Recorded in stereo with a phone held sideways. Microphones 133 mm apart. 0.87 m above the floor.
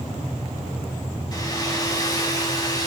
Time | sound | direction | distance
1.3 | a hair dryer | 25° left (ahead or behind) | 2 m